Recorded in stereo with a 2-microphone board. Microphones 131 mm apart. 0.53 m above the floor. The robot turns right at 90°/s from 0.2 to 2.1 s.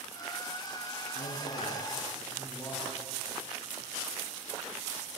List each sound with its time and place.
1.1 s a man speaking: 80° left, 6 m; by 2.9 s 165° left, 6 m